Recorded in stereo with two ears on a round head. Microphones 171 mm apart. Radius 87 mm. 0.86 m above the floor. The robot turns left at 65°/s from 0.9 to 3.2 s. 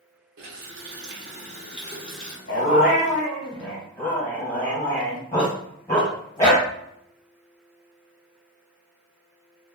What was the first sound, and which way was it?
A running tap, 100° right.